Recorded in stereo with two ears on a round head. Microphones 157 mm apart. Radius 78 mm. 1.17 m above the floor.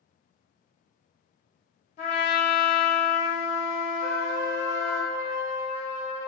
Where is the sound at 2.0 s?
40° left (ahead or behind), 0.9 m.